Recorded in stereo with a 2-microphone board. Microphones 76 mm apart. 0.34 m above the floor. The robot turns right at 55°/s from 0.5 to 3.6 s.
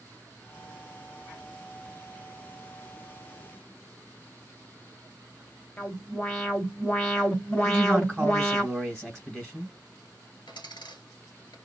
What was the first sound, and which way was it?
An alarm, 25° left (ahead or behind).